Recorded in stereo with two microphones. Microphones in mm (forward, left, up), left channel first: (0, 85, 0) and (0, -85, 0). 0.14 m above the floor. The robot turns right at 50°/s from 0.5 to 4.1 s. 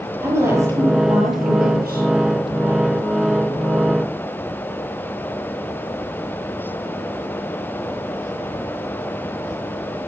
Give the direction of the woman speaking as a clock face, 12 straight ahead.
5 o'clock.